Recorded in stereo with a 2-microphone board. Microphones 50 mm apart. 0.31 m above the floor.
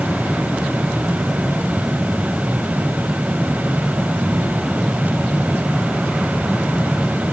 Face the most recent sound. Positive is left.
No sound to turn to.